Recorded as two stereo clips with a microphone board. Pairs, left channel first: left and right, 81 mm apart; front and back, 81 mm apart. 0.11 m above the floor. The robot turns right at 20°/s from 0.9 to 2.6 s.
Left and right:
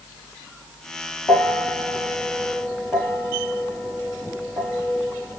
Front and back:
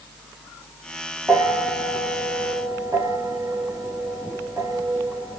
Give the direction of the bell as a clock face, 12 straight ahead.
8 o'clock.